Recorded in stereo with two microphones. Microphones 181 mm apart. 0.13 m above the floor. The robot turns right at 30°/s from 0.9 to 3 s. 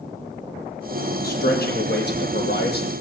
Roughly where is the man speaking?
Ahead left.